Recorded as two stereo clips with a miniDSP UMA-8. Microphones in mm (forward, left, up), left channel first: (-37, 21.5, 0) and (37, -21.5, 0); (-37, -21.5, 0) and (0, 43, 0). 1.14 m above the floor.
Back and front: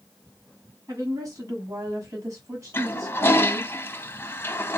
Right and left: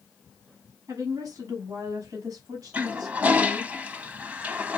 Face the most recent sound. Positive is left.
turn(degrees=115)